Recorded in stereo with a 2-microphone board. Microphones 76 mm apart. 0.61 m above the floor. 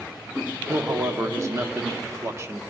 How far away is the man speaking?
About 0.8 m.